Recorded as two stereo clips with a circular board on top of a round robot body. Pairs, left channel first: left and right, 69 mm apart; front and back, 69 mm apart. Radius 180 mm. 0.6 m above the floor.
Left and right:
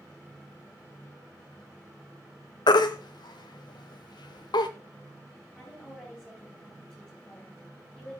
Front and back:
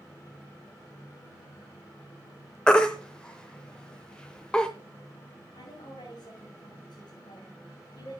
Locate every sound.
2.7 s a baby crying: 80° left, 0.7 m
5.5 s a woman speaking: 15° left, 4.5 m